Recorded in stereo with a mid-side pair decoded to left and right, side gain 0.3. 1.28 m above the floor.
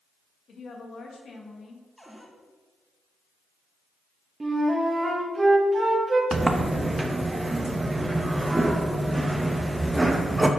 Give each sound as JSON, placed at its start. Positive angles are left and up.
{"t": 0.5, "sound": "a woman speaking", "azimuth_deg": 70, "distance_m": 1.8}
{"t": 2.0, "sound": "a cupboard door", "azimuth_deg": 0, "distance_m": 1.8}
{"t": 4.4, "sound": "a flute", "azimuth_deg": -35, "distance_m": 1.7}
{"t": 6.3, "sound": "a sliding door", "azimuth_deg": -30, "distance_m": 0.9}